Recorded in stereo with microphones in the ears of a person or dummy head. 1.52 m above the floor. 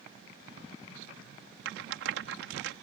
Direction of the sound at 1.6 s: 80° right.